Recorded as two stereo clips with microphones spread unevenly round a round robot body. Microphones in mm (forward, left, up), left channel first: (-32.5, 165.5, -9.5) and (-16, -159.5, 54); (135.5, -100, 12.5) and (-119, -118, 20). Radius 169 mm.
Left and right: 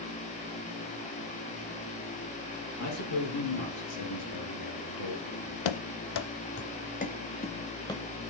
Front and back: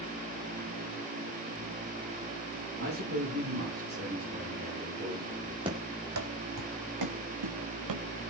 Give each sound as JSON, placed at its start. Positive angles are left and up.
{"t": 2.8, "sound": "a man speaking", "azimuth_deg": 130, "distance_m": 8.0}
{"t": 5.7, "sound": "running footsteps", "azimuth_deg": 110, "distance_m": 0.9}